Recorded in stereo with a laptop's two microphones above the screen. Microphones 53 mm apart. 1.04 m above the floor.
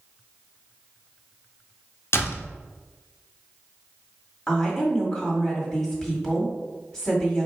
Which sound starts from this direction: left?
A door slam, at 2.1 s.